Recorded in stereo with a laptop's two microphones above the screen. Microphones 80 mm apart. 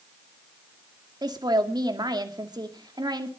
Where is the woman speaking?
65° right (ahead or behind), 2 m.